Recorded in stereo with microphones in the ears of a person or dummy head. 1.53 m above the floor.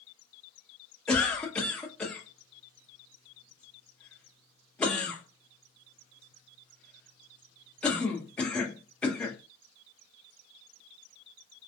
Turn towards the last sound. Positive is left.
turn(degrees=5)  # may be behind; listen again after turning